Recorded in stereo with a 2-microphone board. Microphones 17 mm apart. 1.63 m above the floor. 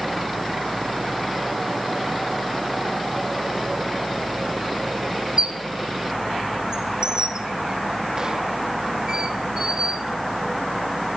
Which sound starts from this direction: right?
A squeak, at 5.4 s.